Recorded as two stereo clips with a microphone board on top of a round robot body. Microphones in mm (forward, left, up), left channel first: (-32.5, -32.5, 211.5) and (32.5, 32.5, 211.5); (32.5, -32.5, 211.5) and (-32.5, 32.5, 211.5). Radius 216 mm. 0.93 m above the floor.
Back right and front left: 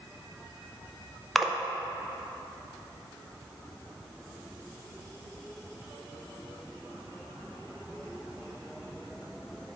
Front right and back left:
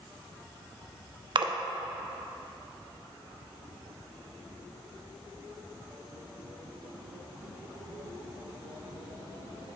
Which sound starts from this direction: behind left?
A splash, at 1.4 s.